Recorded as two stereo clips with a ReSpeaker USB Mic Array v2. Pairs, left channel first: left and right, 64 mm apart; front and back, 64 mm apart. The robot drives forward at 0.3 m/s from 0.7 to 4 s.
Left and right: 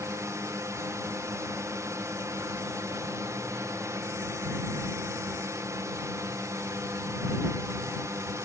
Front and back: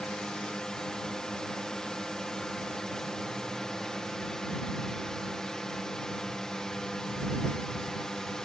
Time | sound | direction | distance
0.0 | a drone | 80° right | ?